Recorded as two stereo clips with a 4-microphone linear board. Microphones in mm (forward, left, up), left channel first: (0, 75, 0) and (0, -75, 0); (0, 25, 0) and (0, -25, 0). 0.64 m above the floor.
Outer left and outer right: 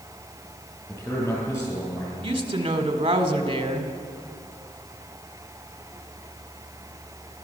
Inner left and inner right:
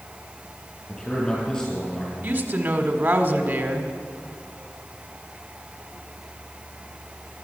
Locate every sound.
0.9 s a man speaking: 20° left (ahead or behind), 8.5 m
2.2 s a woman speaking: 35° right (ahead or behind), 1.7 m